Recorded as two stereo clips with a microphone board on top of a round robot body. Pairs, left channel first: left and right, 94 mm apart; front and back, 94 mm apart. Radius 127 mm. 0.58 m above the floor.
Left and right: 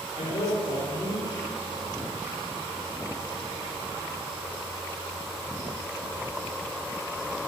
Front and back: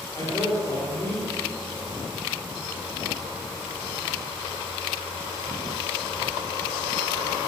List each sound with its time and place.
0.1 s a man speaking: 55° left, 2 m